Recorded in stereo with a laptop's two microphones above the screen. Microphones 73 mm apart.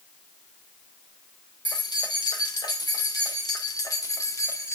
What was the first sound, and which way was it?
Keys jangling, 75° left (ahead or behind).